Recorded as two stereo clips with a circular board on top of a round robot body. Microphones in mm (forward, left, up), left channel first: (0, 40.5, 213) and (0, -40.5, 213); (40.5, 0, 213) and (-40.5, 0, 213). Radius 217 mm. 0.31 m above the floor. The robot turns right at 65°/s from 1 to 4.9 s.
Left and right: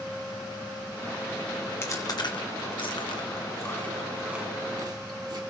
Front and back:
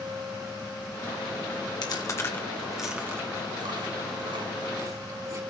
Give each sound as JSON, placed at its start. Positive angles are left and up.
{"t": 1.8, "sound": "chewing", "azimuth_deg": 30, "distance_m": 1.7}